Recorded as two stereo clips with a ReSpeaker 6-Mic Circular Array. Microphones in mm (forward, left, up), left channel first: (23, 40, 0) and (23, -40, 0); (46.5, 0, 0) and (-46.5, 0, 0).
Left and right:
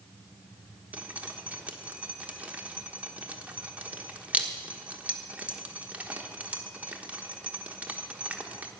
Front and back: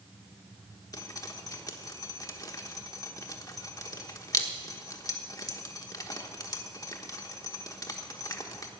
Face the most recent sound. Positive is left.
turn(degrees=-25)